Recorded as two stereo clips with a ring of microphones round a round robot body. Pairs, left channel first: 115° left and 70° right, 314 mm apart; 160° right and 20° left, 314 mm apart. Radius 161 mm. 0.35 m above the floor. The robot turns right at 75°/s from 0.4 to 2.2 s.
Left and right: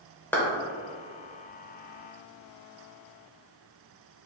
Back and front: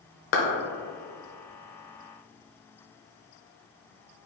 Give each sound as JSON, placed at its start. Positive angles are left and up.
{"t": 0.3, "sound": "a clap", "azimuth_deg": -165, "distance_m": 1.1}